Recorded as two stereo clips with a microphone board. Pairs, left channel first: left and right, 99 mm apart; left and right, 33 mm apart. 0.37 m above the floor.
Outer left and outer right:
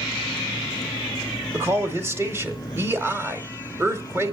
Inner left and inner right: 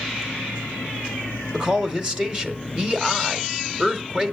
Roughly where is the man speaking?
Right.